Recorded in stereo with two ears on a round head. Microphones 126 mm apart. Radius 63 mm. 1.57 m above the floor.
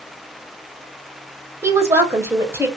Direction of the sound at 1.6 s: 20° right (ahead or behind).